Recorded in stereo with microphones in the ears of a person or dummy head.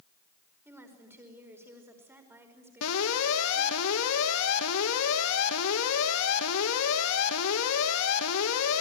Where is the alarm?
80° left, 3 m.